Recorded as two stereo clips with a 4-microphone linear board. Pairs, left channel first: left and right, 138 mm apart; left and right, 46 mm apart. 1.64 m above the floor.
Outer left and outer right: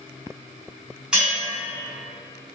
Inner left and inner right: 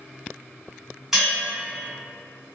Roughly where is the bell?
Centre.